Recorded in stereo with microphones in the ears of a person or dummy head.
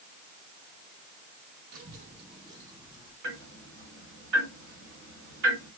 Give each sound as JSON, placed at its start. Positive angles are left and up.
{"t": 1.7, "sound": "a child speaking", "side_deg": -50, "distance_m": 1.1}
{"t": 3.2, "sound": "ticking", "side_deg": -60, "distance_m": 1.7}